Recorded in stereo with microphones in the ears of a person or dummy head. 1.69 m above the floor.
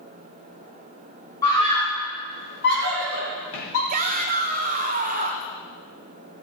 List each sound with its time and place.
1.4 s a scream: 15° left (ahead or behind), 1.4 m; by 3.8 s 70° left (ahead or behind), 3.5 m
3.9 s a shout: 45° right (ahead or behind), 1.4 m